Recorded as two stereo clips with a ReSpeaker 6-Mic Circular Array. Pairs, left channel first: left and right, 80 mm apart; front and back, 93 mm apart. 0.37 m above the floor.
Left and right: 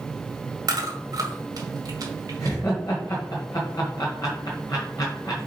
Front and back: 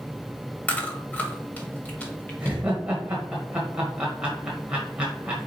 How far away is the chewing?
About 1.9 m.